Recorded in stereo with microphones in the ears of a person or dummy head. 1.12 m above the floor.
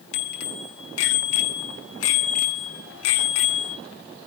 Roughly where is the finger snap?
I don't hear a finger snap.